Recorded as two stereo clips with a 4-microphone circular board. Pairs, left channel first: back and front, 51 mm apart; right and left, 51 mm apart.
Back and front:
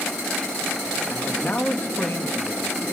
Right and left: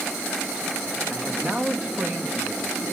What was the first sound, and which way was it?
A man speaking, 160° left.